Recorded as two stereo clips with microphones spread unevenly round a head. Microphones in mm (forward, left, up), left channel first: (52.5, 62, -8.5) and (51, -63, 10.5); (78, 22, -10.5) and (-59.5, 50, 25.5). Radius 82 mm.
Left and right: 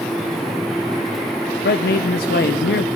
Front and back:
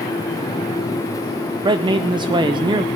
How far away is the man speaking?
About 0.5 m.